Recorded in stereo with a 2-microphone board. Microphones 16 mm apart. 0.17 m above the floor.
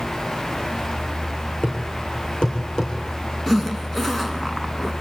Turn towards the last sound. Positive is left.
turn(degrees=15)  # may be behind; listen again after turning